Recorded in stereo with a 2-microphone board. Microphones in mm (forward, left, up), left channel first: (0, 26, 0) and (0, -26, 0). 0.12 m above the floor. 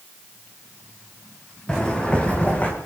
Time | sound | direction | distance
1.7 | footsteps | 20° left (ahead or behind) | 4.5 m